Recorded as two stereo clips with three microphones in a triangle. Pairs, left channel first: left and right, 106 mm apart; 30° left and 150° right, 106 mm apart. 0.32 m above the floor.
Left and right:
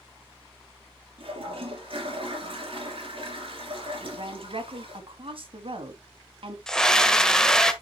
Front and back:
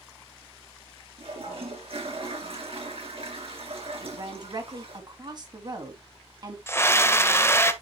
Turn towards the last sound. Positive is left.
turn(degrees=15)